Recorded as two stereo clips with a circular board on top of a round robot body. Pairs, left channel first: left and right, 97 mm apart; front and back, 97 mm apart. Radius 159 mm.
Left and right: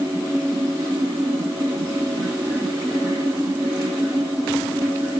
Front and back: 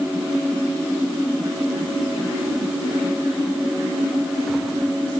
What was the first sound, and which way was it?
Only background noise.